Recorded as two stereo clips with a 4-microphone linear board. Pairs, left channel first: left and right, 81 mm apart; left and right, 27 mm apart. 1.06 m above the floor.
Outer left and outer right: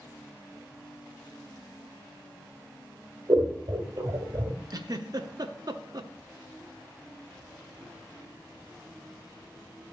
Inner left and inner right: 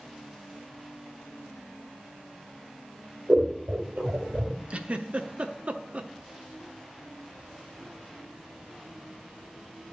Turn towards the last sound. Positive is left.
turn(degrees=-50)  # may be behind; listen again after turning